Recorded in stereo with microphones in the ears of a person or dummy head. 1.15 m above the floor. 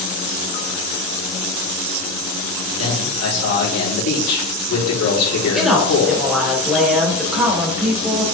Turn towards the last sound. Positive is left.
turn(degrees=0)  # may be behind; listen again after turning